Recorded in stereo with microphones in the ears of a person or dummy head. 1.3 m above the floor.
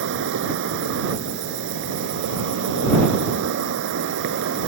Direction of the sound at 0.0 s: 70° right (ahead or behind).